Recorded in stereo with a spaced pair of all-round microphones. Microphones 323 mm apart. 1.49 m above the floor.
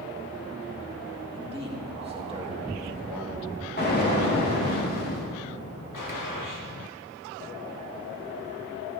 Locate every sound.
1.3 s a man speaking: 15° right (ahead or behind), 1.8 m
3.8 s an explosion: 30° left (ahead or behind), 2.5 m
5.9 s a gunshot: 75° left (ahead or behind), 1.4 m